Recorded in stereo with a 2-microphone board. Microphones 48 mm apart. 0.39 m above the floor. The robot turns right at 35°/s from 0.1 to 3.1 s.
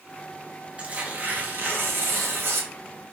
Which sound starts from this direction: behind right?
Tearing paper, at 0.8 s.